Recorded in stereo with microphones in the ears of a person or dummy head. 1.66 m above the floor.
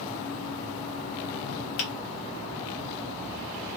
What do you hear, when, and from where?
1.8 s a finger snap: 45° left (ahead or behind), 0.6 m